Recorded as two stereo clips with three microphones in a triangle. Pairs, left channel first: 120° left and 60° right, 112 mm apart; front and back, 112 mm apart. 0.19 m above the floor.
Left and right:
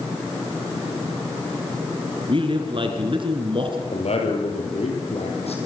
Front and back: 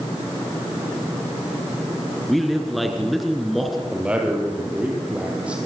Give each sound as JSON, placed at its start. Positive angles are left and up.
{"t": 2.3, "sound": "a man speaking", "azimuth_deg": -90, "distance_m": 3.0}
{"t": 3.9, "sound": "a man speaking", "azimuth_deg": 100, "distance_m": 6.0}